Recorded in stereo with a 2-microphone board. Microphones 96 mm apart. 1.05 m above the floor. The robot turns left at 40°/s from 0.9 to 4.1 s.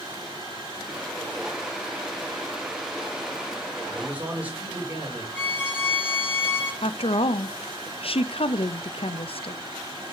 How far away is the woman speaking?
About 0.5 m.